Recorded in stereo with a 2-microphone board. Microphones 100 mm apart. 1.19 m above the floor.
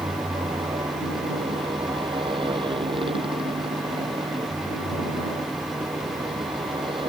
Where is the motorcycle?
60° right (ahead or behind); by 7.1 s 55° right (ahead or behind).